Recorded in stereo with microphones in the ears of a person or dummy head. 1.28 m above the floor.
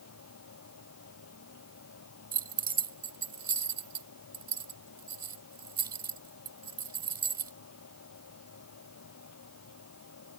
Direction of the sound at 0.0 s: 80° left.